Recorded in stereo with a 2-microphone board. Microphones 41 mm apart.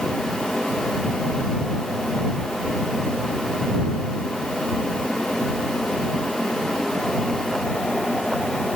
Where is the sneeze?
I don't hear a sneeze.